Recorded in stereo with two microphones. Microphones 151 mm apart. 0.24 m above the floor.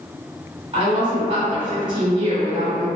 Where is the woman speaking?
35° right (ahead or behind), 1.4 m.